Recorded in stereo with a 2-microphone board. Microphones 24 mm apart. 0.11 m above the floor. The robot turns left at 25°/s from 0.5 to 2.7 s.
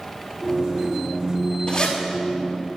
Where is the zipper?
35° left (ahead or behind), 3.5 m; by 2.0 s 40° left (ahead or behind), 3.5 m.